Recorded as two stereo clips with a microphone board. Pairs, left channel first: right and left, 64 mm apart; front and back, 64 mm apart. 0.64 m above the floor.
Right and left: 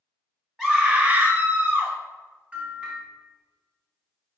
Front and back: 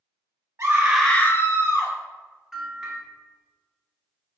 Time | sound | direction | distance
0.6 | a scream | 175° left | 0.7 m
2.5 | a bell | 110° left | 1.1 m